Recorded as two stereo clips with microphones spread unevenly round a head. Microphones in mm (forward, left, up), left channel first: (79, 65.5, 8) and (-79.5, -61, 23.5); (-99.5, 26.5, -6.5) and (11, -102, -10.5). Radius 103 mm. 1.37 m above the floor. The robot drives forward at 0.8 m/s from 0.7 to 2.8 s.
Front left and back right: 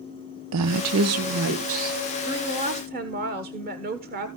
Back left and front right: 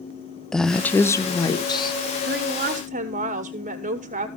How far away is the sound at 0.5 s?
About 0.7 m.